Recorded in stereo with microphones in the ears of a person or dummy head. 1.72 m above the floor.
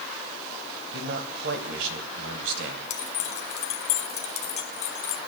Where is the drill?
I don't hear a drill.